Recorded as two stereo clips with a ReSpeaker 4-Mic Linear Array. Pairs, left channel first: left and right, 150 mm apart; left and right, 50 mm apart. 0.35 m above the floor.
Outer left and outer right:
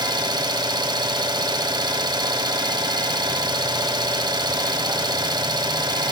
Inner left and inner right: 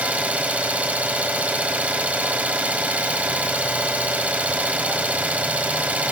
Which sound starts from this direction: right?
An engine running, at 0.0 s.